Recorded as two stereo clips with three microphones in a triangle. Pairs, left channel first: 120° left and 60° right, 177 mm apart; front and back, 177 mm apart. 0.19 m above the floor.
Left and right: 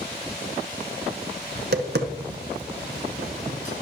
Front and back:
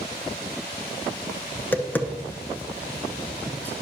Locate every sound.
1.6 s tapping: 80° right, 0.7 m